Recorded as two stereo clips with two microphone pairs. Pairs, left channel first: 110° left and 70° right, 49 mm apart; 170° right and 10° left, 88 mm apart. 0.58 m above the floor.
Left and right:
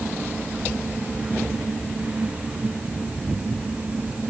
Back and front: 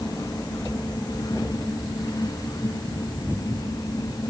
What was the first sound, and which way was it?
Only background noise.